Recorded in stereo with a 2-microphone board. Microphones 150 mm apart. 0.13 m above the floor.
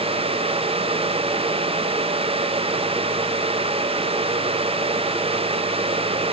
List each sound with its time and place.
Only background noise.